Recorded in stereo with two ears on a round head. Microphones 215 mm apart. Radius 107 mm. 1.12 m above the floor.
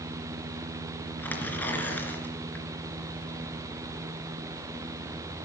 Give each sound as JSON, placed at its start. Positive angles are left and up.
{"t": 1.2, "sound": "tearing paper", "side_deg": 10, "distance_m": 3.5}